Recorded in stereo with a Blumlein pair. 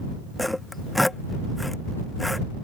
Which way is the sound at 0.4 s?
5° left.